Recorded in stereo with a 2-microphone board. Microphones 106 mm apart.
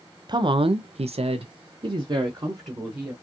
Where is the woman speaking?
45° right (ahead or behind), 0.5 m; by 3.1 s 30° right (ahead or behind), 1.2 m.